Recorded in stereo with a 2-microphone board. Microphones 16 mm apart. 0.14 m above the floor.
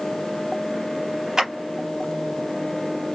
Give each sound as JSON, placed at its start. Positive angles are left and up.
{"t": 1.4, "sound": "a clap", "side_deg": -35, "distance_m": 3.0}